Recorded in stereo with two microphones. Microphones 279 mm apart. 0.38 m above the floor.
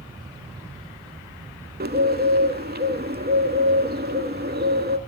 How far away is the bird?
About 0.6 m.